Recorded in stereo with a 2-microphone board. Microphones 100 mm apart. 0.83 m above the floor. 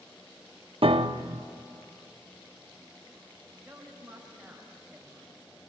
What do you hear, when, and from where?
0.8 s a piano: 65° right (ahead or behind), 0.7 m
3.6 s a woman speaking: 5° right (ahead or behind), 5 m